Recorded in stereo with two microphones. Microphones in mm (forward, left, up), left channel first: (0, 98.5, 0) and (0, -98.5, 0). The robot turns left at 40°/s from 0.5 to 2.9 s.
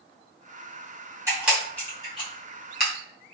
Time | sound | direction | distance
1.3 | a camera shutter | 15° right (ahead or behind) | 1.6 m